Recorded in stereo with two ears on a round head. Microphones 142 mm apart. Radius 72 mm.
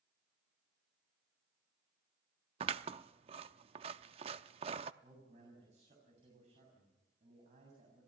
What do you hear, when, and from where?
2.6 s scissors: 35° right (ahead or behind), 0.6 m
5.0 s a man speaking: 45° right (ahead or behind), 7.5 m